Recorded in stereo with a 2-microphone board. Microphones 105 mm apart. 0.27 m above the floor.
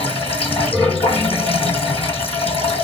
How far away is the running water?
About 1.5 m.